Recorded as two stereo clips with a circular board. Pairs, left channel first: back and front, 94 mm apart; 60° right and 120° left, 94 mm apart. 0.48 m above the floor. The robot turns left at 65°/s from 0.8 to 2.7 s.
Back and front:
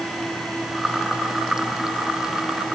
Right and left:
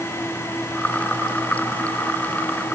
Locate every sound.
Only background noise.